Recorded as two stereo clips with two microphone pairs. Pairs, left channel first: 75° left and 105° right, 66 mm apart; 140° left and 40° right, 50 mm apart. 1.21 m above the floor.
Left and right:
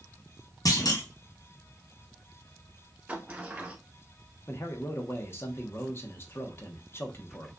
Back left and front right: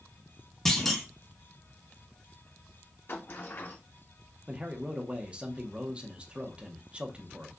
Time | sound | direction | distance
0.7 | a clunk | 55° left | 1.0 m
3.1 | a sliding door | 175° right | 0.8 m
4.5 | a man speaking | 25° left | 1.0 m